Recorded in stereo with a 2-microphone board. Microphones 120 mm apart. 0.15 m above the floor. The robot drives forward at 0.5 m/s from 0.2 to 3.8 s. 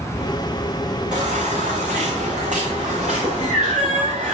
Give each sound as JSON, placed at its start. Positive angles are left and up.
{"t": 1.1, "sound": "a baby crying", "side_deg": -85, "distance_m": 3.5}